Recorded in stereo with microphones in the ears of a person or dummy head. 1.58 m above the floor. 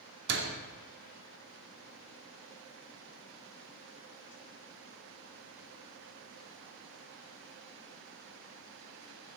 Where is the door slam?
65° right (ahead or behind), 2.5 m.